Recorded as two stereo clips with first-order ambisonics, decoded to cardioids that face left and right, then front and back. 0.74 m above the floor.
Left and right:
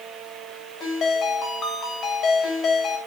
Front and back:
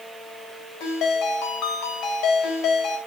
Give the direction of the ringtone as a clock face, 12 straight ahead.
11 o'clock.